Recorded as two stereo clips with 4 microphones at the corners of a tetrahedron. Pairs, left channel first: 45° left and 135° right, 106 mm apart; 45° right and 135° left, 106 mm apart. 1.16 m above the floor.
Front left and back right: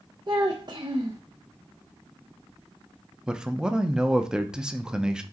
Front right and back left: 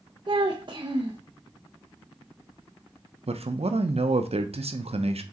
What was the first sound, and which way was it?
A child speaking, straight behind.